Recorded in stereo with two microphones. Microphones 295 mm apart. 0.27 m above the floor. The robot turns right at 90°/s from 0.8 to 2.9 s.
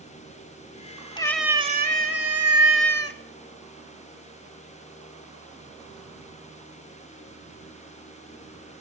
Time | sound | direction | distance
1.2 | a cat meowing | 160° left | 1.0 m